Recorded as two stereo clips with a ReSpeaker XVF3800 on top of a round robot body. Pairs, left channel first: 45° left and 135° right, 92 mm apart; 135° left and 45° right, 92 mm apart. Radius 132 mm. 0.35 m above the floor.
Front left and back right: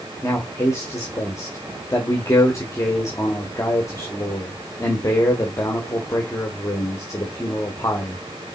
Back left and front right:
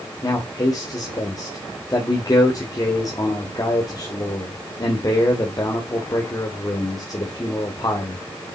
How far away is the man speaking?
About 1.6 m.